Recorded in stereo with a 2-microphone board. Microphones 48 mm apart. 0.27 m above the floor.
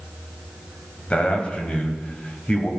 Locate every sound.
1.1 s a man speaking: 25° left (ahead or behind), 1.7 m